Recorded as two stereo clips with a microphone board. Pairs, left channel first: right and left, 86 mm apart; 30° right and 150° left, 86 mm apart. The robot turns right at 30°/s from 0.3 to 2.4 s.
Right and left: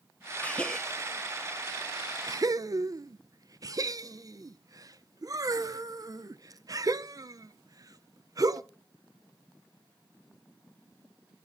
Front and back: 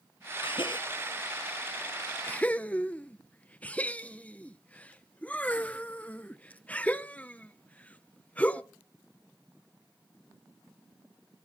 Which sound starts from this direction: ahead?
A gasp, at 0.4 s.